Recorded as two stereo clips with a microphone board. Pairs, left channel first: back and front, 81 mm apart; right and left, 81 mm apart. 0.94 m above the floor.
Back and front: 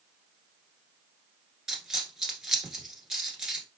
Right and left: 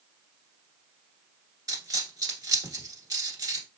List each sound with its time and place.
1.7 s a dropped coin: 80° left, 1.2 m